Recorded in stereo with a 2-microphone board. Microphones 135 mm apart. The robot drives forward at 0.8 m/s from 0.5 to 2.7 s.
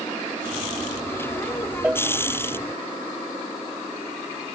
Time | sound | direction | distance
1.8 | a cowbell | 10° right (ahead or behind) | ?